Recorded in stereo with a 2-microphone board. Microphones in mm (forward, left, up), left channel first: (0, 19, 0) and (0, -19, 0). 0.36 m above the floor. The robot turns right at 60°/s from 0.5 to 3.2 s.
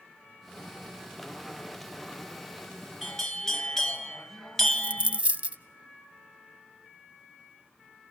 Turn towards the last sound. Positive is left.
turn(degrees=-35)  # may be behind; listen again after turning